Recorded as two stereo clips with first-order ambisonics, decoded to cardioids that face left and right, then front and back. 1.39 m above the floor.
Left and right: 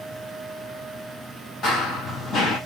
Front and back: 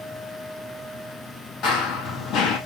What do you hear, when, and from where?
1.6 s running footsteps: 35° left, 2.0 m